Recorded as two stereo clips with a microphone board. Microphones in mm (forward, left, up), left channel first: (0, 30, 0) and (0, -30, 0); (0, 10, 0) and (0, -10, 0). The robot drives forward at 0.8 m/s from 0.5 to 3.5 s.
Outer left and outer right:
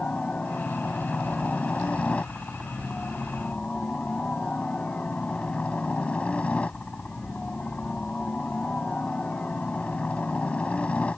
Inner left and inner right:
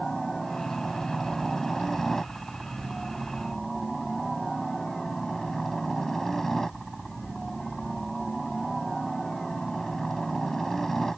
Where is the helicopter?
20° left (ahead or behind).